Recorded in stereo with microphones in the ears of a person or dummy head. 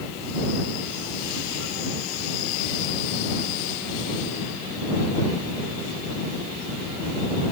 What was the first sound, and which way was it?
Only background noise.